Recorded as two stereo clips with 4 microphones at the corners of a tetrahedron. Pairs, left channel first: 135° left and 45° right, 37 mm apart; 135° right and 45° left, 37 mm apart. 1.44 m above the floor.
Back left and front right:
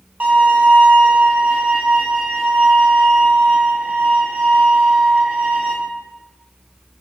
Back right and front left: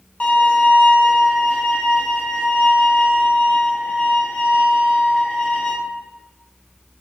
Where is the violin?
85° right, 1.0 m.